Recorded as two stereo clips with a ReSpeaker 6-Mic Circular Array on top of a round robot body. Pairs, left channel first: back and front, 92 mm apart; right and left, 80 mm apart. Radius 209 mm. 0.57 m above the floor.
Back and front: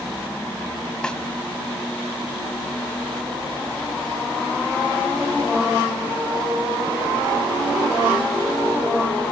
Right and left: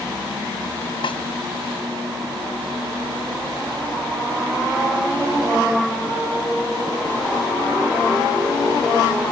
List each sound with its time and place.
1.0 s a snare drum: 100° right